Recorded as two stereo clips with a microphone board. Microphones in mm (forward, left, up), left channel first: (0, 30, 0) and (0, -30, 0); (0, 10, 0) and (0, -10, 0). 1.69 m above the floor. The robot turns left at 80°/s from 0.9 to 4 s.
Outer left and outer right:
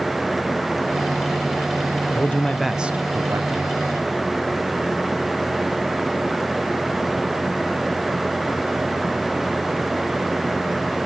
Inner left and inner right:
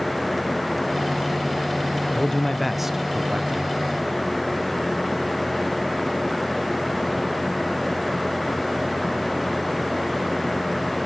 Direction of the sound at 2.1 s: 40° left.